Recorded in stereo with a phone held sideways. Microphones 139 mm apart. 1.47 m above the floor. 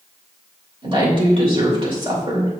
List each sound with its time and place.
0.8 s a woman speaking: 40° right (ahead or behind), 2.5 m